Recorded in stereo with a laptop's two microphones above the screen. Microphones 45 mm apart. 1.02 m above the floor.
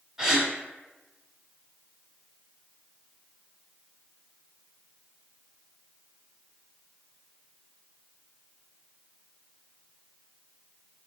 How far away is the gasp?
About 1.2 m.